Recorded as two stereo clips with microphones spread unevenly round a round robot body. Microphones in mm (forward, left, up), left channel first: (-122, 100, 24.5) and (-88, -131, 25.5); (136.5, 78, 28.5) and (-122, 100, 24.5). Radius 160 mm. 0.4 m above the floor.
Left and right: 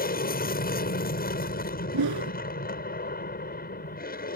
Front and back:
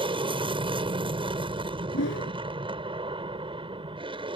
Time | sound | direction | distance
0.0 | an aircraft | 115° left | ?
1.9 | a whoosh | 65° right | ?